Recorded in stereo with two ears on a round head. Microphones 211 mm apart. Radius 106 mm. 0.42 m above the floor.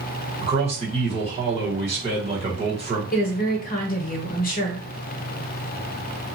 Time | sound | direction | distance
0.4 | a man speaking | 25° right (ahead or behind) | 1.3 m
3.1 | a woman speaking | 40° left (ahead or behind) | 0.9 m